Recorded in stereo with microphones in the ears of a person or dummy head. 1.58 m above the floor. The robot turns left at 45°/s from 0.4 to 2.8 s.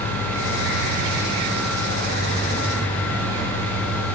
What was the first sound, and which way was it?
An engine running, 160° right.